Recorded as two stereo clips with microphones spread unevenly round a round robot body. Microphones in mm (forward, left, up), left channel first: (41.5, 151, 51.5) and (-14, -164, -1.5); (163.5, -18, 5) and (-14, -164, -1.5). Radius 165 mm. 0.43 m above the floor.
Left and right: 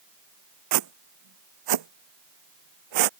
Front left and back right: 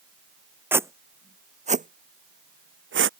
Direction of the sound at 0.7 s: 60° right.